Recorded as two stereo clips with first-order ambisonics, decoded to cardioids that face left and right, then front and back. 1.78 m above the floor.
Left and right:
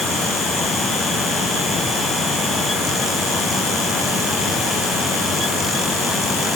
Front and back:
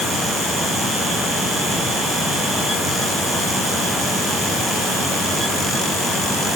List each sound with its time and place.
Only background noise.